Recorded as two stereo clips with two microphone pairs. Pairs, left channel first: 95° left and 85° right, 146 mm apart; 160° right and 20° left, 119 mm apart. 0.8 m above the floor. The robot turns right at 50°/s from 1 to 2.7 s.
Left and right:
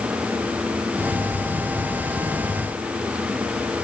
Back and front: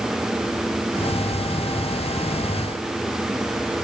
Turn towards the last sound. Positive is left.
No sound to turn to.